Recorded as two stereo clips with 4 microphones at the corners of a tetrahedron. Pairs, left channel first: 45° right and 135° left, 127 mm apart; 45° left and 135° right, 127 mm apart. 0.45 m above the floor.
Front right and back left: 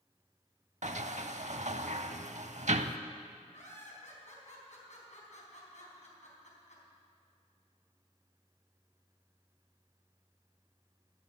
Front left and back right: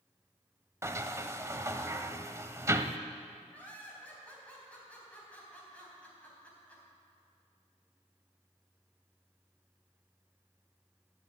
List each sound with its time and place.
0.8 s a sliding door: 160° left, 0.6 m
3.5 s laughter: 35° right, 4 m